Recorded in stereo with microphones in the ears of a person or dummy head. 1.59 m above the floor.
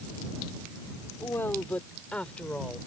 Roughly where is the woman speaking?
Centre.